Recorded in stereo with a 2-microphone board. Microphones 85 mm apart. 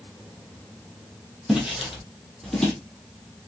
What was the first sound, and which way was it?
Footsteps, 5° right (ahead or behind).